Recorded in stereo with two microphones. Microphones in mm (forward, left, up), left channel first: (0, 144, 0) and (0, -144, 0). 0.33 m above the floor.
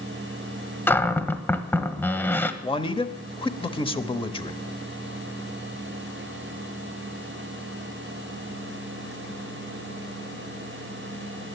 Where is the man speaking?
20° left (ahead or behind), 0.9 m.